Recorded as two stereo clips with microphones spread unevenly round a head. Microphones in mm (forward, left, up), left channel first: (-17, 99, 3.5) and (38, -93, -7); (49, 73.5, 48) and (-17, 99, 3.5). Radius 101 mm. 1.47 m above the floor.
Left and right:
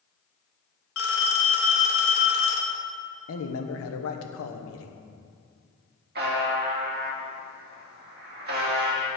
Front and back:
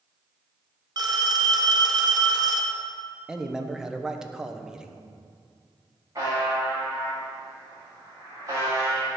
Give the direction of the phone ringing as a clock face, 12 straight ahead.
8 o'clock.